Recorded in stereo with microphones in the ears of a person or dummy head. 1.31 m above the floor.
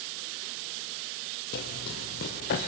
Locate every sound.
1.5 s running footsteps: 45° left (ahead or behind), 1.8 m